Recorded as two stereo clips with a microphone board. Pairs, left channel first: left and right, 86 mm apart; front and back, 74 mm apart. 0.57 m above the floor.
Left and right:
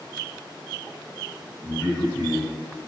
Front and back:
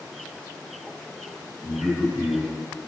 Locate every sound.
1.6 s a man speaking: 175° left, 1.5 m